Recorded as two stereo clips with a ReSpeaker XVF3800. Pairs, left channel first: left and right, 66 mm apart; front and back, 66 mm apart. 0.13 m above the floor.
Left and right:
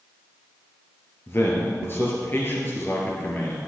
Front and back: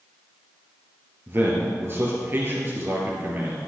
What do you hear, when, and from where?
1.3 s a man speaking: 135° left, 2.5 m